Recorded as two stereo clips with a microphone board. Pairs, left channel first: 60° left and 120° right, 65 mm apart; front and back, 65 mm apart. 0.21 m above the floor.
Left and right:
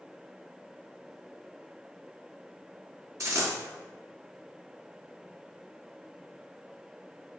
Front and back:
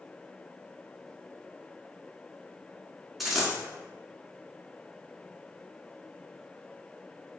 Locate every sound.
3.2 s a dropped coin: 90° right, 1.3 m